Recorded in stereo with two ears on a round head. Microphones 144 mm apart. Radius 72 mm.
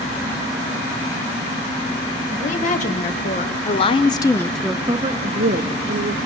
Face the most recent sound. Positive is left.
turn(degrees=-60)  # may be behind; listen again after turning